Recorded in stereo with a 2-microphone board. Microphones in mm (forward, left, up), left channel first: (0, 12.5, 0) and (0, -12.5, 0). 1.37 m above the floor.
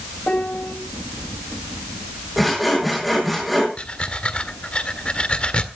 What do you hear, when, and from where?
0.3 s a piano: 60° left (ahead or behind), 2.5 m
2.4 s sawing: centre (ahead or behind), 7.5 m
3.8 s breathing: 45° left (ahead or behind), 1.6 m